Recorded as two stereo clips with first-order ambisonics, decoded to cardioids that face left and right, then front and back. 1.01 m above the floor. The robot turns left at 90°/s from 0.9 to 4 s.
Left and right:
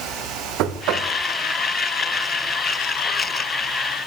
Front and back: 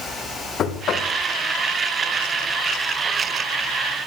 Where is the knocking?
55° right, 1.0 m; by 1.1 s 75° right, 1.0 m.